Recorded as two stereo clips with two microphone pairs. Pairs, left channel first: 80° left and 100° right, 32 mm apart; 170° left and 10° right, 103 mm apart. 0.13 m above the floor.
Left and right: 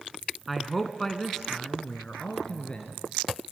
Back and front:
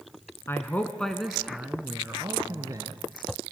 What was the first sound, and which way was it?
A man speaking, 175° left.